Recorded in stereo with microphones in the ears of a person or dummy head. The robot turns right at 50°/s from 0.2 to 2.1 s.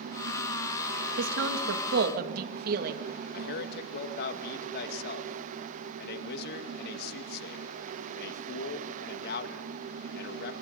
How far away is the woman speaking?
About 2.5 m.